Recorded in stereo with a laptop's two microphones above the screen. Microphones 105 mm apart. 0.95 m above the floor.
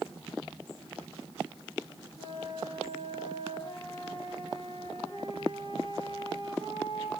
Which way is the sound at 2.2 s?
60° left (ahead or behind).